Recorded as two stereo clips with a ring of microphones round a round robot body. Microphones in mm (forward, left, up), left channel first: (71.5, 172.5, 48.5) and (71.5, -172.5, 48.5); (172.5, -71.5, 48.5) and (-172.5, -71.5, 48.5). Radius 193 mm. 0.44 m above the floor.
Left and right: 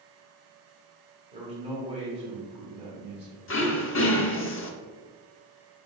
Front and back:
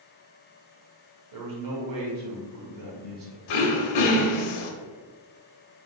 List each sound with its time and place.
1.3 s a man speaking: 160° right, 1.5 m
3.5 s throat clearing: 30° left, 0.7 m